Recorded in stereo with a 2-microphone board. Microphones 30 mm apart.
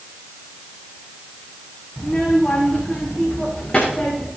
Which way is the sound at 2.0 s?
20° left (ahead or behind).